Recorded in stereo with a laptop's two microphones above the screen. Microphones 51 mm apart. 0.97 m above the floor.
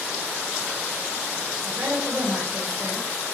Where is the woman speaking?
50° right (ahead or behind), 4 m.